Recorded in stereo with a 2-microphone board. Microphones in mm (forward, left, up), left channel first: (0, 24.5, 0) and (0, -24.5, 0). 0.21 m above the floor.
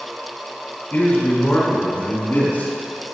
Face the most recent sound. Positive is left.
turn(degrees=45)  # may be behind; listen again after turning